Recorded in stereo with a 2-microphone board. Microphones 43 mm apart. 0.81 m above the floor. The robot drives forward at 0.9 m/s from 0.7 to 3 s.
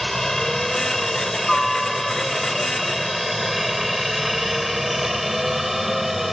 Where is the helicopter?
5° left (ahead or behind); by 6.3 s 5° right (ahead or behind).